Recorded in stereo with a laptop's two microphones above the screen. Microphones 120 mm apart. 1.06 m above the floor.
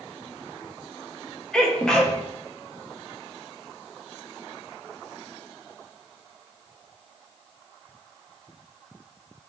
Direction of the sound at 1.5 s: 5° left (ahead or behind).